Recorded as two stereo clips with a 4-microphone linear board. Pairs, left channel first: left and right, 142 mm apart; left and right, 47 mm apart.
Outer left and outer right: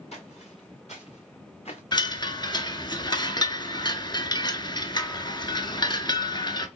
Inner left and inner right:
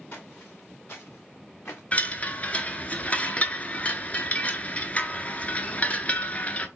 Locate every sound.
0.1 s footsteps: 50° left (ahead or behind), 2.5 m; by 1.8 s 45° left (ahead or behind), 1.4 m
1.9 s a chime: 30° left (ahead or behind), 0.6 m